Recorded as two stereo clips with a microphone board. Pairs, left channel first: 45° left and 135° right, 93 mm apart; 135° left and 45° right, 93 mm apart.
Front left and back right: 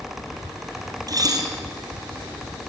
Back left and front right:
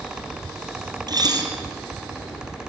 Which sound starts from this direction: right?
Dishes clattering, at 1.1 s.